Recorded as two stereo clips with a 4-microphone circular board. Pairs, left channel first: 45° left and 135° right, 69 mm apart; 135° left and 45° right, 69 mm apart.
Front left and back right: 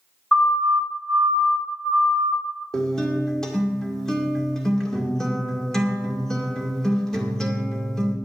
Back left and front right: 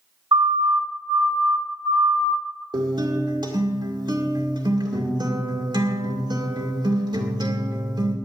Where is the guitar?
35° right, 2 m.